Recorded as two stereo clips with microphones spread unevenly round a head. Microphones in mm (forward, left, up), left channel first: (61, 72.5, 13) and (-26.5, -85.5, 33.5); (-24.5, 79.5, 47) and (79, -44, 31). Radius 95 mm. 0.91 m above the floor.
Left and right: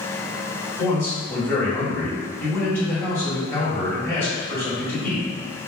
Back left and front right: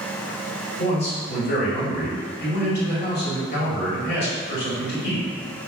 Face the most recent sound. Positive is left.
turn(degrees=135)